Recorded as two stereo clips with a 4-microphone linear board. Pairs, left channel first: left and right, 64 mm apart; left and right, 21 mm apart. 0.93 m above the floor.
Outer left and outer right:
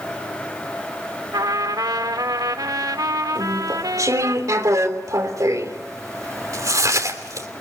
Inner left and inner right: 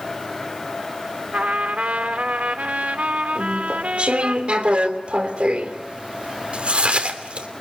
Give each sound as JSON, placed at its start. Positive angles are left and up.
{"t": 1.3, "sound": "a trumpet", "side_deg": -90, "distance_m": 1.7}
{"t": 3.4, "sound": "chewing", "side_deg": -60, "distance_m": 3.0}